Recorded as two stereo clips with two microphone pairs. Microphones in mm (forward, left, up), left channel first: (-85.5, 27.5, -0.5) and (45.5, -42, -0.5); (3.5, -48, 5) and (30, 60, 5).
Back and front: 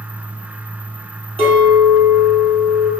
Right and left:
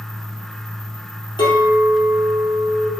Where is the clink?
70° right, 2 m.